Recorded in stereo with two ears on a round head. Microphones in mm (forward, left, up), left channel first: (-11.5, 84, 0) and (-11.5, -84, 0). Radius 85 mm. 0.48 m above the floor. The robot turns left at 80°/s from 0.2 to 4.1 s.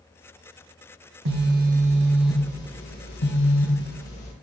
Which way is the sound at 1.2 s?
95° right.